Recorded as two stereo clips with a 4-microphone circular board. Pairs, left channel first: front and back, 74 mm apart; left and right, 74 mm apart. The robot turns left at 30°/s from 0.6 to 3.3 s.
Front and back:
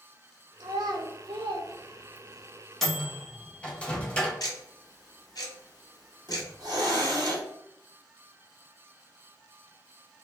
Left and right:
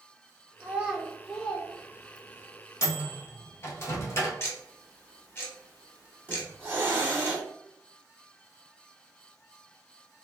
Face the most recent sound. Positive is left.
turn(degrees=-150)